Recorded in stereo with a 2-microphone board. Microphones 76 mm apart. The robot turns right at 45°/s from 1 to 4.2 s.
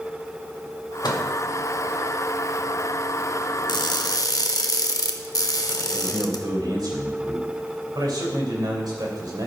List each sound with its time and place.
1.0 s a microwave: 75° left (ahead or behind), 1.6 m; by 1.3 s 65° left (ahead or behind), 1.6 m
3.7 s crushing: 75° left (ahead or behind), 0.8 m; by 6.4 s 60° left (ahead or behind), 0.8 m
5.9 s a man speaking: 70° right (ahead or behind), 3 m